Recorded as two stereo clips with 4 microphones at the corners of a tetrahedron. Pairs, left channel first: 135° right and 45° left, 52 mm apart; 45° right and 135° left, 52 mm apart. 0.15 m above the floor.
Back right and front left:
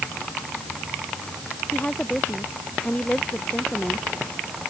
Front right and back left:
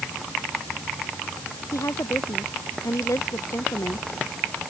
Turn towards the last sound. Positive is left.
turn(degrees=-65)